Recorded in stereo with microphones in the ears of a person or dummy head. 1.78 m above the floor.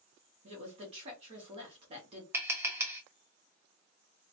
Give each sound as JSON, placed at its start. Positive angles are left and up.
{"t": 0.4, "sound": "a woman speaking", "side_deg": -35, "distance_m": 1.0}
{"t": 2.3, "sound": "tapping", "side_deg": -10, "distance_m": 0.6}